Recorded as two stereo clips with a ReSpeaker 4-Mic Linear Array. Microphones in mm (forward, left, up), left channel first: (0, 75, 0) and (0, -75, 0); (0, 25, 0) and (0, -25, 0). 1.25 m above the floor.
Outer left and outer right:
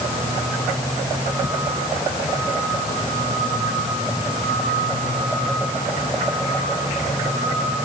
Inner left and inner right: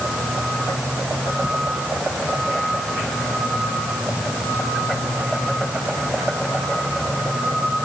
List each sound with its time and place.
Only background noise.